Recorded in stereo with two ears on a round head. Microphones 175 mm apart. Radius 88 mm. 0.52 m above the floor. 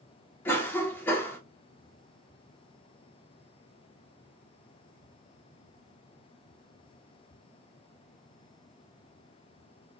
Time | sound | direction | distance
0.5 | a cough | 10° left (ahead or behind) | 1.0 m